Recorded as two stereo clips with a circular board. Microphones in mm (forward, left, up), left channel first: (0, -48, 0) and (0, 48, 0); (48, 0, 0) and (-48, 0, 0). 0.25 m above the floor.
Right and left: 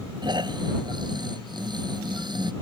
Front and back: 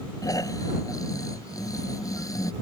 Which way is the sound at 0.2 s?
50° left.